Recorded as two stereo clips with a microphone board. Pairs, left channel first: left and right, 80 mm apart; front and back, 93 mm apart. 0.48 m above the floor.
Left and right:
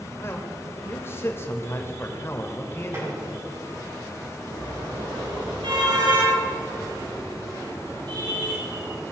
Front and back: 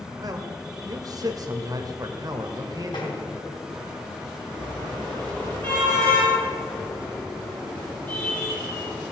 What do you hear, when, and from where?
0.2 s a man speaking: 145° left, 1.7 m
2.9 s tapping: 35° right, 4.5 m
4.5 s a car horn: 70° right, 5.5 m